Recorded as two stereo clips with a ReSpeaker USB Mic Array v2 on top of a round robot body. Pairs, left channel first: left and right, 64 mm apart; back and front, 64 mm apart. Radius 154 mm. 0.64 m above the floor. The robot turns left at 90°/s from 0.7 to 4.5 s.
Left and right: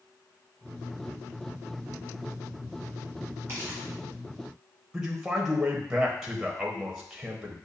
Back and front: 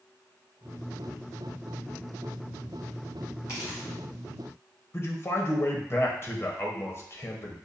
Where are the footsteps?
140° right, 1.5 m; by 3.9 s 175° right, 1.5 m.